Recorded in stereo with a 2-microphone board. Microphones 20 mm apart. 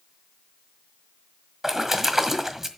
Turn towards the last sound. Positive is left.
turn(degrees=-20)  # may be behind; listen again after turning